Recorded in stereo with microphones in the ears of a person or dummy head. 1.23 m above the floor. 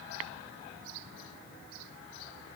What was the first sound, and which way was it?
Only background noise.